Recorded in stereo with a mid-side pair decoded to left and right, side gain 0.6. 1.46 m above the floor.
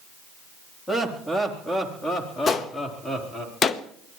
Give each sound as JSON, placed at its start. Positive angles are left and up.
{"t": 0.9, "sound": "laughter", "azimuth_deg": 10, "distance_m": 3.5}
{"t": 2.5, "sound": "a gunshot", "azimuth_deg": 35, "distance_m": 1.1}